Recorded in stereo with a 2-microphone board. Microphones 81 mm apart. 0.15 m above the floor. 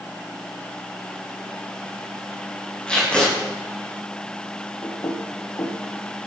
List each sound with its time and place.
2.9 s tape being pulled: 15° left (ahead or behind), 8 m
4.8 s knocking: 60° left (ahead or behind), 3 m